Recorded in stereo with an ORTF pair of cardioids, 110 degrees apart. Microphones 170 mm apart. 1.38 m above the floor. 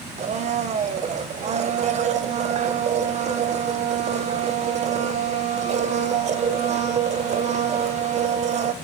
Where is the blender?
40° right, 0.8 m.